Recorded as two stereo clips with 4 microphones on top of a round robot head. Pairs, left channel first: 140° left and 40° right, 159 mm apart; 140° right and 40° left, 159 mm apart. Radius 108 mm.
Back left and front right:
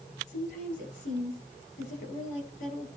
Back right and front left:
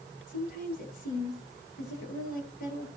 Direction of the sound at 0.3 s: 175° right.